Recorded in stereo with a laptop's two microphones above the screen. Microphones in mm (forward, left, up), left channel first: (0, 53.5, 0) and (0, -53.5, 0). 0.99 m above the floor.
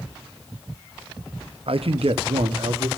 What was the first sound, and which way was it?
A man speaking, 65° right (ahead or behind).